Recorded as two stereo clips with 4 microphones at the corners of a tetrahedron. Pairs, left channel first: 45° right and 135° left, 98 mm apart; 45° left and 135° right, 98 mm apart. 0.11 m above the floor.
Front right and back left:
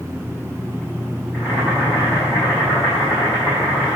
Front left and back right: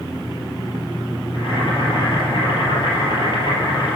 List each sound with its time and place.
1.3 s boiling: 65° left, 4 m